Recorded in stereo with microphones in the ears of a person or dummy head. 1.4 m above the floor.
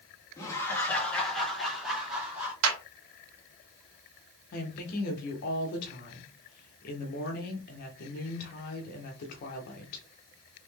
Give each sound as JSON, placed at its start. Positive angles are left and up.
{"t": 0.4, "sound": "laughter", "side_deg": 20, "distance_m": 1.5}
{"t": 2.6, "sound": "a clap", "side_deg": -85, "distance_m": 1.9}
{"t": 4.5, "sound": "a woman speaking", "side_deg": 50, "distance_m": 1.2}